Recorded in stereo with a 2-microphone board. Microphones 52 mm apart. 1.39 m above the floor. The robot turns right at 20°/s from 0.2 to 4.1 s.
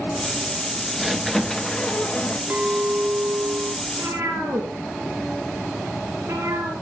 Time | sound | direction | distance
1.0 | a squeak | centre (ahead or behind) | 1.0 m
2.5 | a clink | 25° right (ahead or behind) | 1.5 m
3.9 | a cat meowing | 75° right (ahead or behind) | 4.5 m